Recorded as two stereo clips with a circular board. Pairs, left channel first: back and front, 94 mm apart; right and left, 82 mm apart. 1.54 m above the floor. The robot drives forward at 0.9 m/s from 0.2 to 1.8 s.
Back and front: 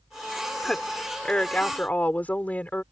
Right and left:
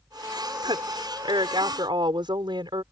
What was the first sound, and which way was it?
A woman speaking, 95° left.